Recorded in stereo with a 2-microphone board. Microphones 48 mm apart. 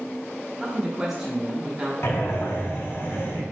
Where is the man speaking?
10° right (ahead or behind), 0.9 m.